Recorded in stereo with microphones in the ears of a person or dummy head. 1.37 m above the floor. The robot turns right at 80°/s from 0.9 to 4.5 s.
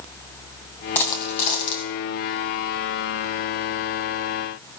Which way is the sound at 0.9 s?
15° left.